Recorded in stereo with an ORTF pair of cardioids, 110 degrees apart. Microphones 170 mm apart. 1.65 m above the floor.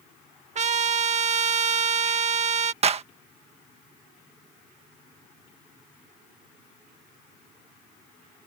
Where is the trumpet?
45° right.